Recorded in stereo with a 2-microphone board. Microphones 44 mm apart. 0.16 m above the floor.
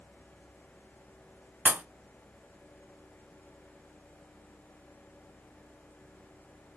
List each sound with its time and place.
1.6 s a pop: 40° right (ahead or behind), 0.6 m